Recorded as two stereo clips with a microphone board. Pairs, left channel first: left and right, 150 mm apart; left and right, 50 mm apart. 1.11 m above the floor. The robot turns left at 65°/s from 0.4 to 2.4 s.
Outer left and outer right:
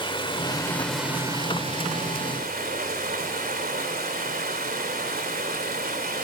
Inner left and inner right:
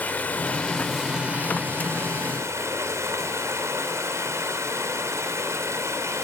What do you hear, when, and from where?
0.0 s running water: 35° left, 3 m; by 6.2 s 95° right, 3 m